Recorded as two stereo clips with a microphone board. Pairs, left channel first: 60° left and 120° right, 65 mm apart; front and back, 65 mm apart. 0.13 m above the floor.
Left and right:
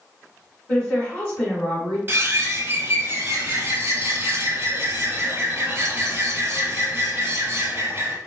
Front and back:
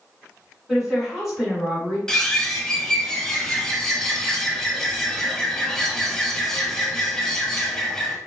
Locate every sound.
0.7 s a woman speaking: 95° left, 1.7 m
2.1 s a bird: 80° right, 0.8 m